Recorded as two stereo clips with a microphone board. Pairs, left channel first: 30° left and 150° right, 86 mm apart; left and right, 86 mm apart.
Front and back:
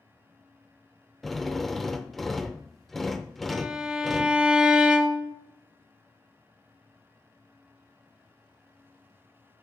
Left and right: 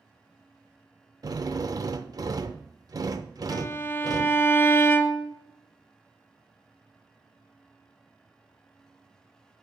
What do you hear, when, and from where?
1.2 s a drill: 55° right, 0.5 m
3.5 s a violin: 135° left, 0.7 m